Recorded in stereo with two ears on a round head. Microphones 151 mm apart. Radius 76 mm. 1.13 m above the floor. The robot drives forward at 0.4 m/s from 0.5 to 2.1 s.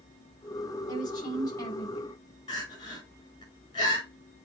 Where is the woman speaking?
25° left (ahead or behind), 4.5 m.